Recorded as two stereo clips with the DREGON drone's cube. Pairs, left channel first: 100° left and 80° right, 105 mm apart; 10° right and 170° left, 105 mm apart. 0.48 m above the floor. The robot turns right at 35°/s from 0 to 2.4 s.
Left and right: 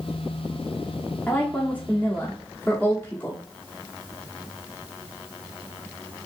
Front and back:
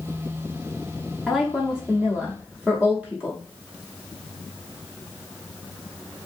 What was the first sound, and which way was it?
A woman speaking, 90° left.